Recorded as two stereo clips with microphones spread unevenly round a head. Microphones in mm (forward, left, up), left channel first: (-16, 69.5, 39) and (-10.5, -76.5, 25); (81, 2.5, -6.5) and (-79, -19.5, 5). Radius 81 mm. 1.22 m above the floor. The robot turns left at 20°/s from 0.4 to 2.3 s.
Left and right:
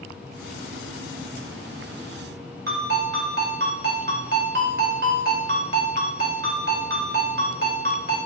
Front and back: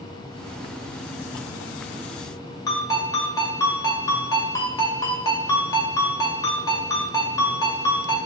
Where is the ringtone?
60° right, 1.9 m.